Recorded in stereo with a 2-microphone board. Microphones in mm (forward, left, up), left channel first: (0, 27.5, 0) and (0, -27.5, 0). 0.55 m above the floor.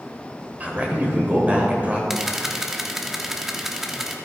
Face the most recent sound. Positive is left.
turn(degrees=-5)  # may be behind; listen again after turning